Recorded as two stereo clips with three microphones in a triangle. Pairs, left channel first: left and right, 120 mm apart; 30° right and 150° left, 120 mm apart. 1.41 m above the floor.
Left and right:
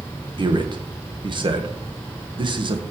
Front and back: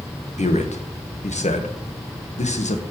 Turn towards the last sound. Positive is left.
turn(degrees=-40)